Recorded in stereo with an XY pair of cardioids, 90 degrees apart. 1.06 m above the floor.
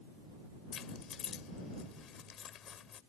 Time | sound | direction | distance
0.7 | keys jangling | 70° left | ?